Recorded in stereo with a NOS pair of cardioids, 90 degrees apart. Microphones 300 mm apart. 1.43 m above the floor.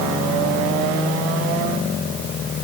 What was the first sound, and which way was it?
Only background noise.